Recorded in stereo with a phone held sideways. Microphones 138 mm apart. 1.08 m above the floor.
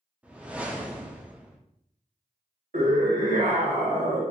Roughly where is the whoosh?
Centre.